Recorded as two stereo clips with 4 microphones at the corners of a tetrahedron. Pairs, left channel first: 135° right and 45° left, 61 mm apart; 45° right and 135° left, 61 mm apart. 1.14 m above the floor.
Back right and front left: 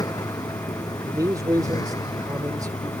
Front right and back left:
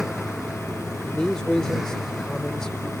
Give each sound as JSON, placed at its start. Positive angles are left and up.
{"t": 0.0, "sound": "a vehicle", "azimuth_deg": -140}
{"t": 1.1, "sound": "a man speaking", "azimuth_deg": 35}